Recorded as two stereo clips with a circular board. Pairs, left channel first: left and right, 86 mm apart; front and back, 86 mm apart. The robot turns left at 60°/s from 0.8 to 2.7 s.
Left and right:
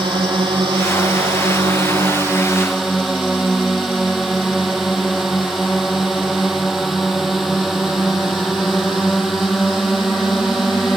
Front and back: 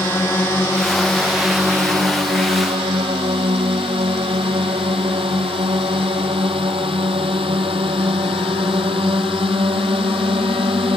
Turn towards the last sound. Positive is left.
turn(degrees=180)